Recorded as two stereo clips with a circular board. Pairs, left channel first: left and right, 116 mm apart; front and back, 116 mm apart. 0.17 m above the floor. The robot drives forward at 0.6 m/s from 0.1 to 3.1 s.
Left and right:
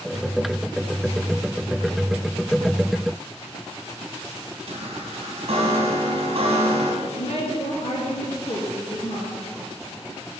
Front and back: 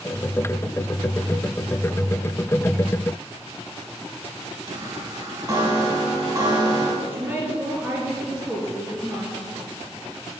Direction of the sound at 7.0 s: 110° left.